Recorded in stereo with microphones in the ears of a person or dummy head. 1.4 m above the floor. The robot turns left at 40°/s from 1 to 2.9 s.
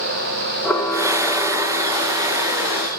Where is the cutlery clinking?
No cutlery clinking in this recording.